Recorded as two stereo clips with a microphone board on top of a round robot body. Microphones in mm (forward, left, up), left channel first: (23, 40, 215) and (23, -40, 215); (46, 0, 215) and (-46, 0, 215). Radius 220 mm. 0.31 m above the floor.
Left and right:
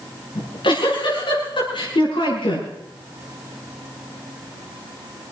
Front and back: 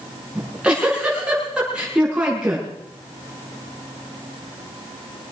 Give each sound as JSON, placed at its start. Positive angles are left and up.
{"t": 0.3, "sound": "a giggle", "azimuth_deg": 100, "distance_m": 7.0}